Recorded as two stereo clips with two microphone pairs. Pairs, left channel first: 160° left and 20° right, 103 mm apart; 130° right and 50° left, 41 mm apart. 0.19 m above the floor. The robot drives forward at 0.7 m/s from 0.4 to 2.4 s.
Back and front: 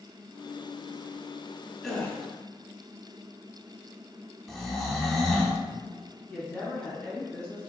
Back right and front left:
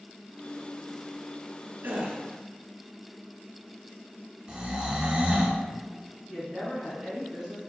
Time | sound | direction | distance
1.8 | a gasp | 75° left | 0.6 m
4.5 | snoring | 85° left | 0.6 m
6.3 | a woman speaking | 110° left | 1.3 m